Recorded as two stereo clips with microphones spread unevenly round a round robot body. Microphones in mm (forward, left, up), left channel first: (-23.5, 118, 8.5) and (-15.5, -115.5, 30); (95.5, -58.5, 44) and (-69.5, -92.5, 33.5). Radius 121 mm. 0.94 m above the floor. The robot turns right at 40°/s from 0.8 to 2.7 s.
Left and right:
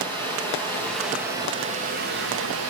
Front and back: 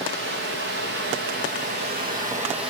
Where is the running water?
175° left, 9 m; by 2.7 s 110° right, 9 m.